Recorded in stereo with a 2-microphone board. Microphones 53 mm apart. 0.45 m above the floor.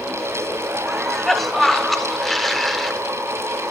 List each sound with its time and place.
0.9 s a cough: 5° left (ahead or behind), 1.0 m